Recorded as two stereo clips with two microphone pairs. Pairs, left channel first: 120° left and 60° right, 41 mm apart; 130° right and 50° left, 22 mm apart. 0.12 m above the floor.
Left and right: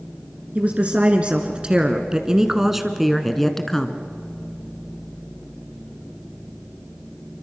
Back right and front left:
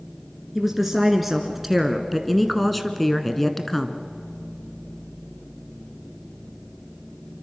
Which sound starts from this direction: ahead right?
A woman speaking, at 0.6 s.